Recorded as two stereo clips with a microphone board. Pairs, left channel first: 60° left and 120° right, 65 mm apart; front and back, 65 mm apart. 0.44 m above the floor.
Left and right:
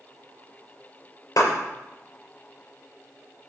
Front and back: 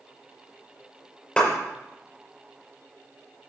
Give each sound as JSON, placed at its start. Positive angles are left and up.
{"t": 1.4, "sound": "a clap", "azimuth_deg": 75, "distance_m": 6.0}